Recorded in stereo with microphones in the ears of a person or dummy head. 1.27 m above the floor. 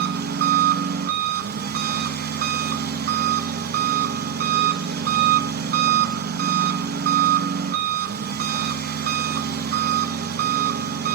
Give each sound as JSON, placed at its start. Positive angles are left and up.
{"t": 0.0, "sound": "an engine running", "side_deg": -55, "distance_m": 1.4}